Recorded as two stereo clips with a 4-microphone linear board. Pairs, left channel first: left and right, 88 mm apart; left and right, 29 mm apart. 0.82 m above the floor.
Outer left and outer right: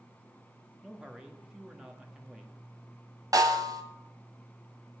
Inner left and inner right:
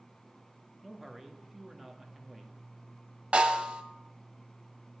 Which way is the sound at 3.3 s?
45° right (ahead or behind).